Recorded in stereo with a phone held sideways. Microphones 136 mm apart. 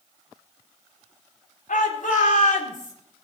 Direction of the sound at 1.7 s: 90° left.